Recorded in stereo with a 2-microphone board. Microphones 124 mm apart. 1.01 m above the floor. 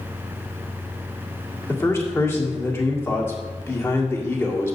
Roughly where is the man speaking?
Centre.